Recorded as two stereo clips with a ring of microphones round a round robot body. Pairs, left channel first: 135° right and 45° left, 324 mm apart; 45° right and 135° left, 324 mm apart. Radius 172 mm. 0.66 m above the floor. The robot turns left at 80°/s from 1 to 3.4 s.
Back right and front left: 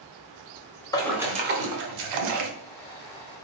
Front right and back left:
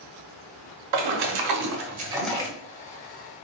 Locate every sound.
0.9 s a splash: 145° left, 0.9 m; by 2.5 s 25° left, 0.9 m